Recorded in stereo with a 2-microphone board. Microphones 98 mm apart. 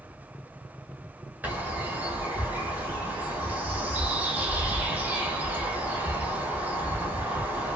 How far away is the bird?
About 0.9 m.